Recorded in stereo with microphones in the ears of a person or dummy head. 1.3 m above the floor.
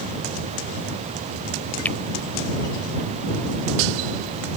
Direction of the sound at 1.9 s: 10° left (ahead or behind).